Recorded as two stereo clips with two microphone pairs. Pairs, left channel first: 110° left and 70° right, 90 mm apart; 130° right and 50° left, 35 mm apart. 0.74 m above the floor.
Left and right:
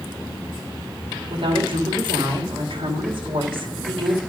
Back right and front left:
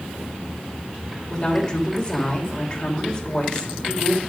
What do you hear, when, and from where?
1.3 s a woman speaking: 60° right, 2.5 m